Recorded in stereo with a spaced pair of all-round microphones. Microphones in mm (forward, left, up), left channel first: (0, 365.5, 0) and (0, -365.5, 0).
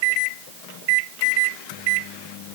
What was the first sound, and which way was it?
Only background noise.